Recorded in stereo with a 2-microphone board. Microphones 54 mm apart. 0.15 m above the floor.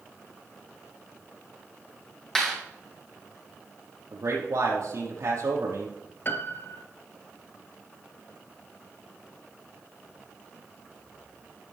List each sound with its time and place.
2.4 s a clap: 10° left (ahead or behind), 5 m
4.1 s a man speaking: 75° right (ahead or behind), 4.5 m
6.2 s a piano: 45° left (ahead or behind), 1.0 m